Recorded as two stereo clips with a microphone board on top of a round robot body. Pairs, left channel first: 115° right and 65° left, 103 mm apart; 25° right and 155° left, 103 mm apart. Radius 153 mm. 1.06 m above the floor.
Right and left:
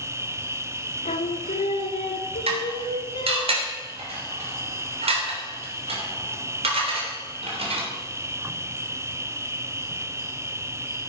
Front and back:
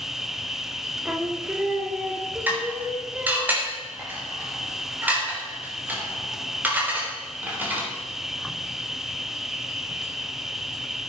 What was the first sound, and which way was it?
An insect, 75° left.